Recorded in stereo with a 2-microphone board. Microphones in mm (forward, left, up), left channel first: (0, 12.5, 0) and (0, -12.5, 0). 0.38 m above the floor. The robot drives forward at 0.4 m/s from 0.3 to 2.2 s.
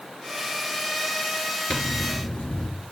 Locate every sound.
1.7 s a zipper: 50° left (ahead or behind), 5.5 m